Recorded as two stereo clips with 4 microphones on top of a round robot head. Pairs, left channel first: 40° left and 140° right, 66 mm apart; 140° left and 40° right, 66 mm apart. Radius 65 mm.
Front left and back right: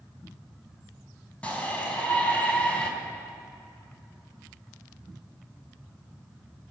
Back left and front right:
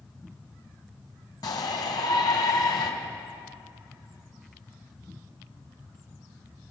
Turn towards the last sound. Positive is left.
turn(degrees=110)